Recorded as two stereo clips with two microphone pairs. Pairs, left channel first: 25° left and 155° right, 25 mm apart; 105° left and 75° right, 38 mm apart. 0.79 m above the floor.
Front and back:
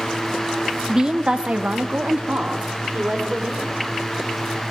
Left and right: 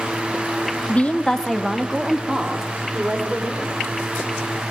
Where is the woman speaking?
140° left, 1.0 m; by 3.8 s 135° right, 3.5 m.